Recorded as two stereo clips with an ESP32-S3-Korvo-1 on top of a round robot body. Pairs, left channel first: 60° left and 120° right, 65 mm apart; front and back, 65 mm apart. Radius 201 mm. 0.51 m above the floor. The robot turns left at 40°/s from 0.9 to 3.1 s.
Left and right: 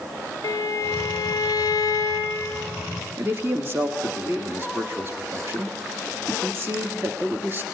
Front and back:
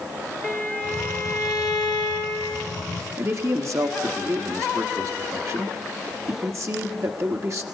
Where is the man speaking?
160° right, 1.6 m.